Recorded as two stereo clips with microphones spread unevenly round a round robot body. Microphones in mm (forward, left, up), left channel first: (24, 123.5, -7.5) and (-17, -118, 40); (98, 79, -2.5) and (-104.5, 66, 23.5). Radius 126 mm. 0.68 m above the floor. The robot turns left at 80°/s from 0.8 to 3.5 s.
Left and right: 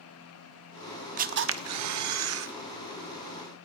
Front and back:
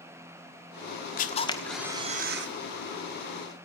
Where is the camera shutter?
35° right, 1.2 m; by 2.5 s 145° right, 1.2 m.